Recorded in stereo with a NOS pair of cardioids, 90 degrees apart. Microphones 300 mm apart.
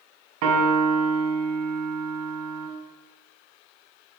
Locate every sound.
0.4 s a piano: 70° right, 1.0 m